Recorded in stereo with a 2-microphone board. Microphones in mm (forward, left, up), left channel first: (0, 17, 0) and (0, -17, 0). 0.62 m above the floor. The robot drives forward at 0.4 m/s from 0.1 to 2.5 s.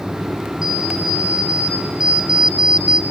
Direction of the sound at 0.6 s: 25° right (ahead or behind).